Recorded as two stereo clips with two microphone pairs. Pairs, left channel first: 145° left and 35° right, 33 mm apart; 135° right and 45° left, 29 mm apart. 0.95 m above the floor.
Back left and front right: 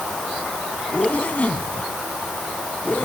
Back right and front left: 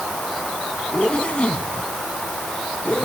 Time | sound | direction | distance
0.9 | a zipper | straight behind | ?